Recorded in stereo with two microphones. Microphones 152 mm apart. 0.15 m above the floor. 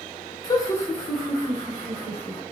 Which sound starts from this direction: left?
Laughter, at 0.4 s.